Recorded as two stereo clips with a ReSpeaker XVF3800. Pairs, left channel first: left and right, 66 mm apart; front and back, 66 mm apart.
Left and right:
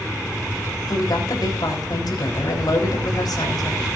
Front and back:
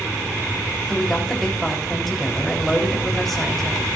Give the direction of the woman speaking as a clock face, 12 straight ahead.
9 o'clock.